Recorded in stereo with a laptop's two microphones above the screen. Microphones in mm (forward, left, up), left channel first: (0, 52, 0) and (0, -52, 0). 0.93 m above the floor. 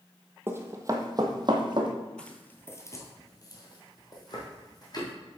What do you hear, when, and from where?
0.5 s running footsteps: 20° right (ahead or behind), 1.1 m; by 1.9 s 50° right (ahead or behind), 1.5 m
2.2 s footsteps: 10° left (ahead or behind), 1.0 m; by 5.1 s 40° left (ahead or behind), 2.5 m